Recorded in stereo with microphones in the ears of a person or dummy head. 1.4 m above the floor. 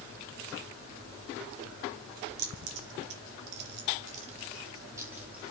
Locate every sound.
2.4 s keys jangling: 70° right (ahead or behind), 2.0 m; by 5.5 s 5° right (ahead or behind), 1.8 m